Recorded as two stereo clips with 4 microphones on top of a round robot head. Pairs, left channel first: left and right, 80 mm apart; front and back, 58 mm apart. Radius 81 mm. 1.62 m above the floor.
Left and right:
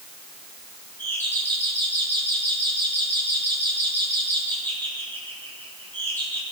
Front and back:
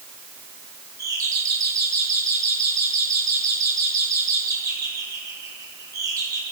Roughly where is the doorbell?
Behind.